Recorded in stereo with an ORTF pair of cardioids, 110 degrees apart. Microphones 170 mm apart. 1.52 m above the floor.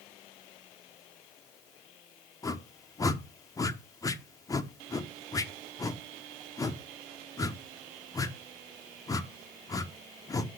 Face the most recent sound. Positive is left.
turn(degrees=20)